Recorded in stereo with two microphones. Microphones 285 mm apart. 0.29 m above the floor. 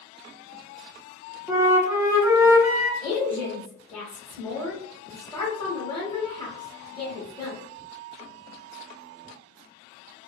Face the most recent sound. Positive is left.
turn(degrees=15)  # may be behind; listen again after turning